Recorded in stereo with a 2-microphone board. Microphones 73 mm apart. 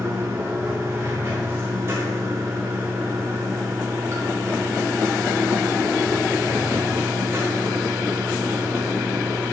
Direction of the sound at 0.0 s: 35° right (ahead or behind).